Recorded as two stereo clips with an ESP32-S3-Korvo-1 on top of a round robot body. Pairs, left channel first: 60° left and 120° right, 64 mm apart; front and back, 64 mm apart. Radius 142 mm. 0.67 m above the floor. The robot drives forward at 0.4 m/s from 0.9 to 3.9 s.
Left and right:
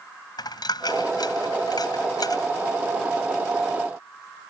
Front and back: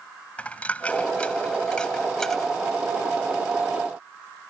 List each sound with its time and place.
0.4 s a dropped coin: 70° left; by 2.5 s 85° left